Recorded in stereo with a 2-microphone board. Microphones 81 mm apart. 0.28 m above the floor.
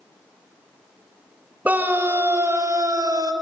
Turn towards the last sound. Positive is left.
turn(degrees=-50)  # may be behind; listen again after turning